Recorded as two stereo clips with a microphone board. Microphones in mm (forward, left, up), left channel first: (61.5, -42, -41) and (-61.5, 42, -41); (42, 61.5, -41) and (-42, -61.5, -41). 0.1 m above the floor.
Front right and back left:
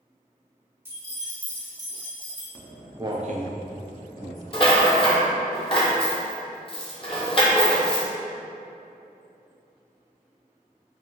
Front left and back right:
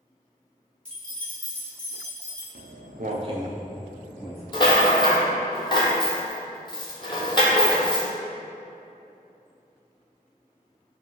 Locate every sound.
0.8 s keys jangling: 120° left, 0.9 m; by 2.5 s 135° left, 1.5 m
2.5 s footsteps: 115° right, 0.8 m; by 4.4 s 130° left, 1.4 m
4.5 s a rattle: 5° left, 0.6 m